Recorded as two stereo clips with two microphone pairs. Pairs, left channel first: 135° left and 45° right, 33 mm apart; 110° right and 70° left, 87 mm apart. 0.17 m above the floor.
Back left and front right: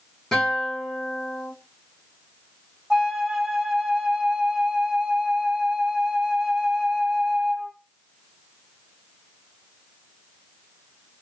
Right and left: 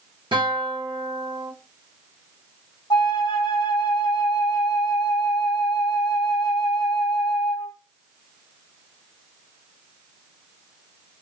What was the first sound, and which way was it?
A guitar, 55° left.